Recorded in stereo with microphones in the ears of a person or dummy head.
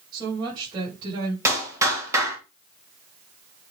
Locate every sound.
0.1 s a woman speaking: 25° right (ahead or behind), 7 m
1.4 s a clap: 20° right (ahead or behind), 3.5 m